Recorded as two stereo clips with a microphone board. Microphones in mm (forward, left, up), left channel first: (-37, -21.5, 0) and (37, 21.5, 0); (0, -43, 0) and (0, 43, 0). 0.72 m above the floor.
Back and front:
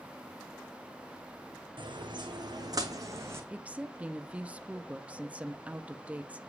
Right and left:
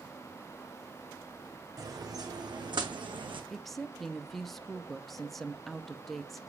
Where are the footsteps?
40° left, 2 m; by 3.4 s 90° left, 2 m.